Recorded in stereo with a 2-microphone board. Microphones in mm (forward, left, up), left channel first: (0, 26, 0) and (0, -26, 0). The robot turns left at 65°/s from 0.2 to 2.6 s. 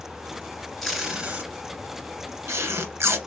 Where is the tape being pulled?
5° left (ahead or behind), 1.8 m; by 3.2 s 60° right (ahead or behind), 1.8 m.